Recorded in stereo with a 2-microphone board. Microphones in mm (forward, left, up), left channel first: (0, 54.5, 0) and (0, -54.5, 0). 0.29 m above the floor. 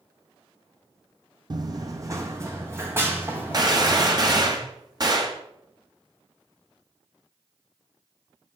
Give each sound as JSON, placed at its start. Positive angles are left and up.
{"t": 1.5, "sound": "running footsteps", "side_deg": -40, "distance_m": 0.6}
{"t": 3.5, "sound": "a gunshot", "side_deg": -40, "distance_m": 1.1}